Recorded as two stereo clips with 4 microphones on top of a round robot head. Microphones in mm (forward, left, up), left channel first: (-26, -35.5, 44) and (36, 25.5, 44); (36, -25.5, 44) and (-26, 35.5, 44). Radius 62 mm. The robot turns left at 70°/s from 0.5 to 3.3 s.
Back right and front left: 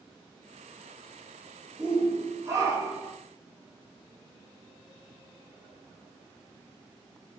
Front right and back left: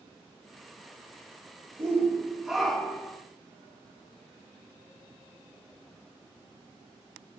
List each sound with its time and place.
1.8 s a shout: 105° left, 1.3 m; by 3.2 s 5° left, 1.3 m